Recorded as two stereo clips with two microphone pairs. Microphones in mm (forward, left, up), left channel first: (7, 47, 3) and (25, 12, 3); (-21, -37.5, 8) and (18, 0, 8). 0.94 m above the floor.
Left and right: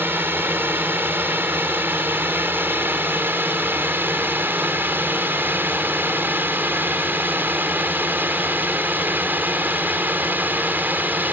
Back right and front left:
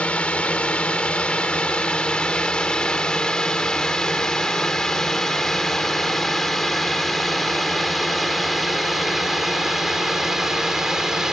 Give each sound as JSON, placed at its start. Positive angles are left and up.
{"t": 0.0, "sound": "a drone", "azimuth_deg": -70}